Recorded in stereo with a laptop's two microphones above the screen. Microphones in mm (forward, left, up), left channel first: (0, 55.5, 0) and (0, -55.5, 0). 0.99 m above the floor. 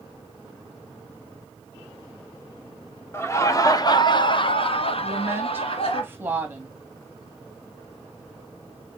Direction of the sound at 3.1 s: 25° left (ahead or behind).